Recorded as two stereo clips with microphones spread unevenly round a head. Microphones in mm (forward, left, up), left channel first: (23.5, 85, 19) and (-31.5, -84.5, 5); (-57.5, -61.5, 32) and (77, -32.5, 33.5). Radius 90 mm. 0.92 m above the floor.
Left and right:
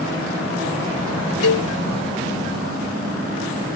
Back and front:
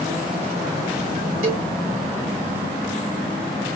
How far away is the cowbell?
About 1.1 m.